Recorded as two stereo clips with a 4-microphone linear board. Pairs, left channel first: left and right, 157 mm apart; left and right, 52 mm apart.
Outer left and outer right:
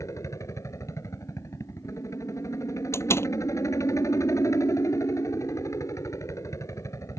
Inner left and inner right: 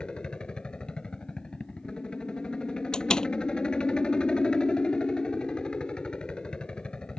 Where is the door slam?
15° left (ahead or behind).